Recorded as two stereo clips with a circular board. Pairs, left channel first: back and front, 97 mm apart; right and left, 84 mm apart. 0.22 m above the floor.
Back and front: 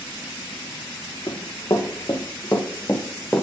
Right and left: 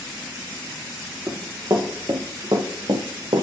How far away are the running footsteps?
About 3.5 m.